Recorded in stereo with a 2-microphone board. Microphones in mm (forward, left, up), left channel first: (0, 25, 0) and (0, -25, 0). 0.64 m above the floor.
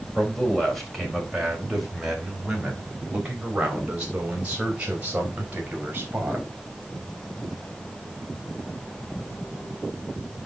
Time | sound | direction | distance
0.1 | a man speaking | 5° left (ahead or behind) | 4 m